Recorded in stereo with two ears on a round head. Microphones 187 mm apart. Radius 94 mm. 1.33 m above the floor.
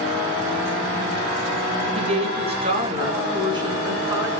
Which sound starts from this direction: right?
A woman speaking, at 1.9 s.